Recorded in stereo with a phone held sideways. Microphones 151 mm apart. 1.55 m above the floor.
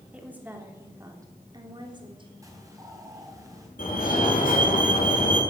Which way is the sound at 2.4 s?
20° right (ahead or behind).